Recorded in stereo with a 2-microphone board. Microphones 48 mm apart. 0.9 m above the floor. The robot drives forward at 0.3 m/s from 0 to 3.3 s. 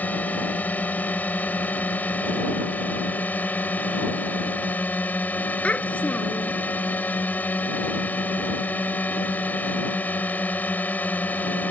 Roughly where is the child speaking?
Left.